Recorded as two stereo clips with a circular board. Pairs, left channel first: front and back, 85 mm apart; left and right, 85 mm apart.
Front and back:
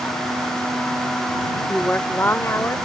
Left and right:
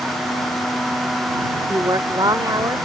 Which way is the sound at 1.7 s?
75° right.